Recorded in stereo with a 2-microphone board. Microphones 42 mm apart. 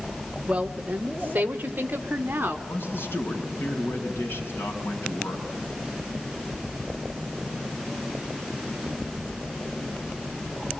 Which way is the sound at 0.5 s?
20° right (ahead or behind).